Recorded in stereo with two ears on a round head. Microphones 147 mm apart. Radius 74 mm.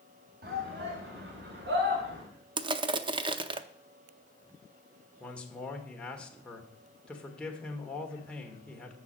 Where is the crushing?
30° right (ahead or behind), 0.6 m.